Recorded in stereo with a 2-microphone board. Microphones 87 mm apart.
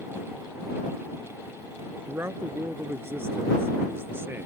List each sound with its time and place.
2.1 s a man speaking: 30° right (ahead or behind); by 4.5 s 25° right (ahead or behind)